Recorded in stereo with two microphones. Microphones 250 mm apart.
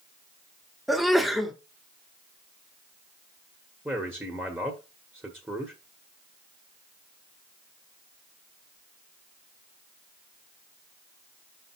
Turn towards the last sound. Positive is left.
turn(degrees=-10)  # may be behind; listen again after turning